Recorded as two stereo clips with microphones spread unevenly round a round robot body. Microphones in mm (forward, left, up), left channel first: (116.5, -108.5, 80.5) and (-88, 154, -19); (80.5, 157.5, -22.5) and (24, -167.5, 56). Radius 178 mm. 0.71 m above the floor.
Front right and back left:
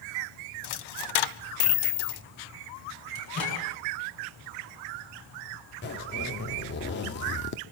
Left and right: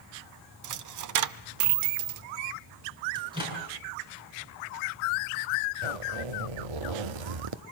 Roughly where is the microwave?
Ahead.